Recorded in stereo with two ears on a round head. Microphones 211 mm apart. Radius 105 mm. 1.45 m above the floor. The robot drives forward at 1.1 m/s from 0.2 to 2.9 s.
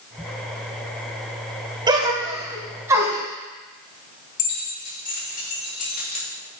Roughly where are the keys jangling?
Left.